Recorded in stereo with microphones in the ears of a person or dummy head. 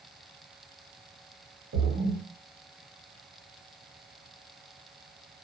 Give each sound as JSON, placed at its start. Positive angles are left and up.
{"t": 1.7, "sound": "a splash", "side_deg": -55, "distance_m": 0.9}